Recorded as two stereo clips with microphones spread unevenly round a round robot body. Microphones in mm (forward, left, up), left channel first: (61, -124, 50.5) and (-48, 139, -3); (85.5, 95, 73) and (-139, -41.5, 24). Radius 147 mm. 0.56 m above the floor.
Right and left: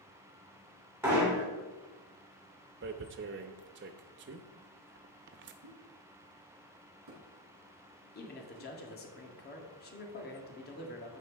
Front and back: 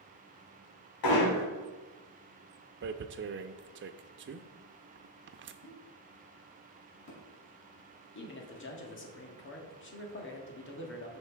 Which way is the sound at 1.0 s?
30° left.